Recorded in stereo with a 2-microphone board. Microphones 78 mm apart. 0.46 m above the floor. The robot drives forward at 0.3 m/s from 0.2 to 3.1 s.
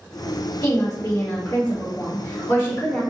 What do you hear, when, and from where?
0.6 s a woman speaking: 40° left (ahead or behind), 1.3 m; by 3.0 s 30° left (ahead or behind), 1.5 m